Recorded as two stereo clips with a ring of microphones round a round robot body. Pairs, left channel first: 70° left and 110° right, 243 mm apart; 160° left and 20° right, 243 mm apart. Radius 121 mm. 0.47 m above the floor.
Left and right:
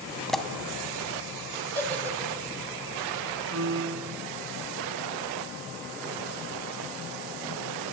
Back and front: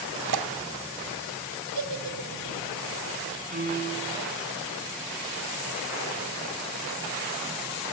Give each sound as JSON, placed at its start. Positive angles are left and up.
{"t": 0.3, "sound": "a pop", "azimuth_deg": -20, "distance_m": 1.9}
{"t": 1.8, "sound": "a giggle", "azimuth_deg": -15, "distance_m": 3.5}
{"t": 3.5, "sound": "a piano", "azimuth_deg": -80, "distance_m": 4.0}